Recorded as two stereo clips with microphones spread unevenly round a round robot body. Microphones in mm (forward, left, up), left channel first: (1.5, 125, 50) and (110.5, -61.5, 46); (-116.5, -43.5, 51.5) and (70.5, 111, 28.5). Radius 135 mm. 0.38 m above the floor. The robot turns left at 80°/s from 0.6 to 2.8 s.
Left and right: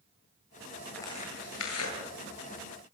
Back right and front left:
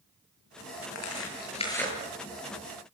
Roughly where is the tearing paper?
Behind right.